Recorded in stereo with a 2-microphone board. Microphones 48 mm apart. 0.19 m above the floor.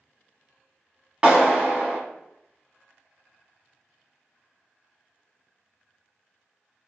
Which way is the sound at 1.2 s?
20° right (ahead or behind).